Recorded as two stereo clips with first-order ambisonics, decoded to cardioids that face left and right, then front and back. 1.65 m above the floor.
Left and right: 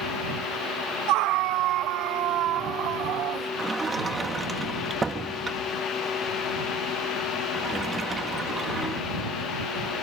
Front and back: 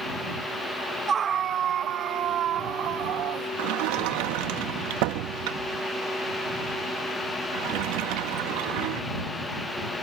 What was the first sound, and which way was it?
A scream, 115° right.